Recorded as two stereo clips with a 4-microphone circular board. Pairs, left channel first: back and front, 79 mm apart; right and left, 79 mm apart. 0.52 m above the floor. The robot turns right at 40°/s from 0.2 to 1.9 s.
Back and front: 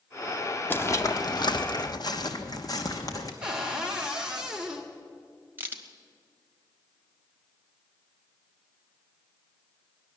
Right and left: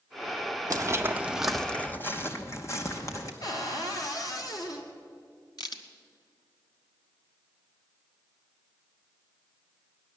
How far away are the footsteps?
About 0.9 m.